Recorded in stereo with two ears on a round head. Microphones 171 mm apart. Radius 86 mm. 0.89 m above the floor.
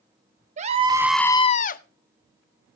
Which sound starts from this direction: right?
A scream, at 0.6 s.